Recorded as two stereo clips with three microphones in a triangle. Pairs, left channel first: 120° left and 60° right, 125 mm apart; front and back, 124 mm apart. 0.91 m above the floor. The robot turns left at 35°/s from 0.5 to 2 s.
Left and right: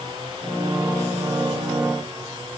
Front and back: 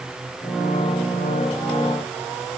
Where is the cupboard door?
No cupboard door in this recording.